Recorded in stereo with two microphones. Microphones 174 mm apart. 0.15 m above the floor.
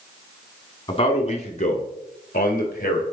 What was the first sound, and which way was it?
A man speaking, 30° left (ahead or behind).